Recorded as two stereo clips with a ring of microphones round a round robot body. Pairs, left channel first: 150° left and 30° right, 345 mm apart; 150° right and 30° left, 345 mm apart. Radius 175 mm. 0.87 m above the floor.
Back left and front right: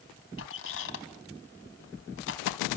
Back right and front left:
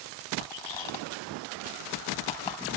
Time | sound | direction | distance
0.4 | a squeak | 155° right | 3 m